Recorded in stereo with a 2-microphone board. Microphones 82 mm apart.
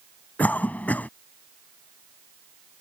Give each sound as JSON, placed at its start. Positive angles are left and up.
{"t": 0.4, "sound": "a cough", "side_deg": 20}